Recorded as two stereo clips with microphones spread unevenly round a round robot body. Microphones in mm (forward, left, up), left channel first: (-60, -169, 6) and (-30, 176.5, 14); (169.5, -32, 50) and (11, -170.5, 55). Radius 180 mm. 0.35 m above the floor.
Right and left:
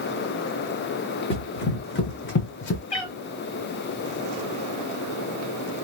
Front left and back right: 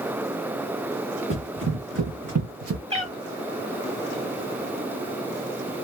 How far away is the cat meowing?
About 1.5 m.